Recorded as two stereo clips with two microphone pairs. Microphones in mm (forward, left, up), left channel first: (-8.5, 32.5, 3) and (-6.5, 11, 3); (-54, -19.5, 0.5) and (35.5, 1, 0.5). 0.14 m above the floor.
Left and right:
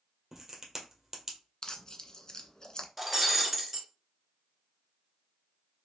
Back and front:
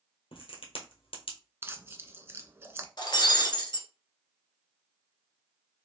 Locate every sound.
0.3 s a crack: 155° right, 1.5 m
1.6 s tearing paper: 65° left, 0.6 m
3.0 s breaking glass: 165° right, 1.3 m